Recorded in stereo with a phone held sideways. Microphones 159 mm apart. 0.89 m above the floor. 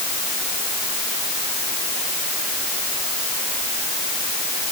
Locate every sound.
Only background noise.